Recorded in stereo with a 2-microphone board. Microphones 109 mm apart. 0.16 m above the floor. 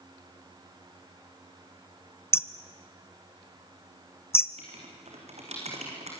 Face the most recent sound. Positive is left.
turn(degrees=-80)